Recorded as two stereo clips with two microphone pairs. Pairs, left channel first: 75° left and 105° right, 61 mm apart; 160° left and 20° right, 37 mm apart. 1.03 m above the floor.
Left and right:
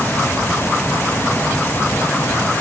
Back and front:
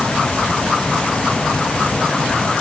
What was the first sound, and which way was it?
Only background noise.